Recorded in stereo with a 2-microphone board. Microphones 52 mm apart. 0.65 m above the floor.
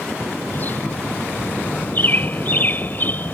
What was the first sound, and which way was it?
A bird, 40° left (ahead or behind).